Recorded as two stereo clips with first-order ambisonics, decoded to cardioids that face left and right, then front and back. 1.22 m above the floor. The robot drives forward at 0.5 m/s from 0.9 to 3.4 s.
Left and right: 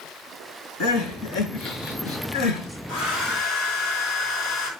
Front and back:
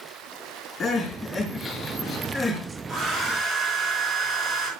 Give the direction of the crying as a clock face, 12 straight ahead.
10 o'clock.